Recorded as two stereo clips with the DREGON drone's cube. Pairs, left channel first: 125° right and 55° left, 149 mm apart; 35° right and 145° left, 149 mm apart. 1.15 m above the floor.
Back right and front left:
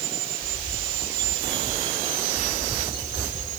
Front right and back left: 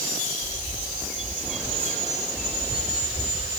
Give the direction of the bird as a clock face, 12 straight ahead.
4 o'clock.